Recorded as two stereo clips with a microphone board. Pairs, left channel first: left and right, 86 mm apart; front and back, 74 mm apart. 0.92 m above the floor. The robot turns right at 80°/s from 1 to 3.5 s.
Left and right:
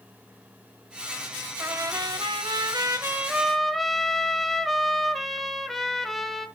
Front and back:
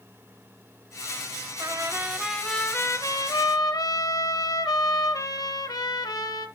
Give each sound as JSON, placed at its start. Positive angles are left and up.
{"t": 1.6, "sound": "a trumpet", "azimuth_deg": -150, "distance_m": 1.2}